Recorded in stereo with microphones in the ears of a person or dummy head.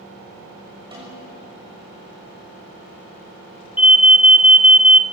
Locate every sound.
0.9 s a snare drum: 20° right (ahead or behind), 6.5 m
3.8 s an alarm: 10° right (ahead or behind), 1.3 m